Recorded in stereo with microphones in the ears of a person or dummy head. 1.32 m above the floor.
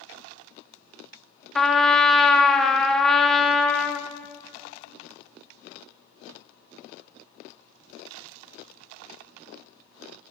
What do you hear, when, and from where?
1.6 s a trumpet: 5° left (ahead or behind), 0.6 m